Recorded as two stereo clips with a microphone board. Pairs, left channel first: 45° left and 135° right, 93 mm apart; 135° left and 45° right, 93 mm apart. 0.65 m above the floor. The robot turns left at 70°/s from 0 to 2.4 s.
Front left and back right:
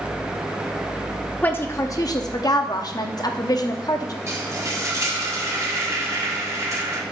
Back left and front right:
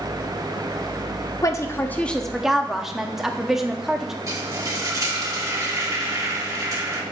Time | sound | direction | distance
1.4 | a woman speaking | 110° left | 0.7 m
4.3 | frying | 90° right | 1.4 m